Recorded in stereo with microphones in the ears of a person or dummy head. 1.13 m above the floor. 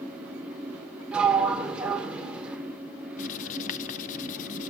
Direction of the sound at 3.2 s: 40° left (ahead or behind).